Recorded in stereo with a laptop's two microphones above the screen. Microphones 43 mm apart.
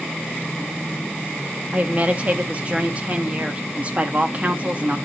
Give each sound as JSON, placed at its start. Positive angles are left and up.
{"t": 1.7, "sound": "a woman speaking", "side_deg": -35, "distance_m": 1.8}